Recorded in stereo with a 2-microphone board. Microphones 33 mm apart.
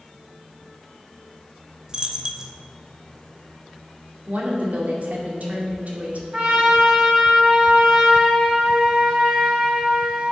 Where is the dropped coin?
20° right (ahead or behind), 0.8 m.